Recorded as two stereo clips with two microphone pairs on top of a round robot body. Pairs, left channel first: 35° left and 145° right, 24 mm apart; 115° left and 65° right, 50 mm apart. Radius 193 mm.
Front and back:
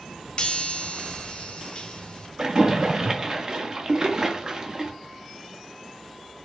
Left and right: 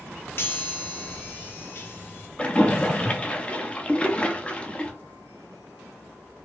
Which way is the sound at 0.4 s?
75° left.